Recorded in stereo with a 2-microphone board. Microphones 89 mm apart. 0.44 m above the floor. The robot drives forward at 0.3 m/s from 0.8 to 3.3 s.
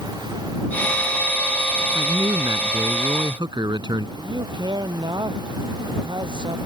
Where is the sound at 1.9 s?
60° right (ahead or behind); by 4.1 s 55° right (ahead or behind).